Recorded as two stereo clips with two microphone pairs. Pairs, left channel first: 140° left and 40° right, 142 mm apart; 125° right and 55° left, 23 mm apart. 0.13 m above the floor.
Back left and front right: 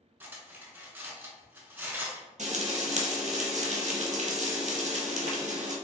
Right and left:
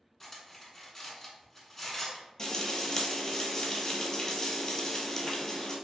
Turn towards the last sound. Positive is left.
turn(degrees=-65)